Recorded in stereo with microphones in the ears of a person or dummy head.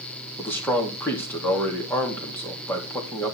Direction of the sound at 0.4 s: 10° left (ahead or behind).